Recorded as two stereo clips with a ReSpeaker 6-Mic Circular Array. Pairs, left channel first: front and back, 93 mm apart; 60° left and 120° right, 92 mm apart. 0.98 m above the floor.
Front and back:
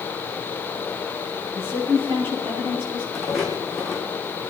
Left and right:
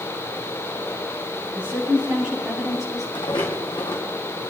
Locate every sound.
1.6 s a woman speaking: 165° left, 8 m; by 3.0 s 155° left, 8 m
3.1 s footsteps: 90° left, 3.5 m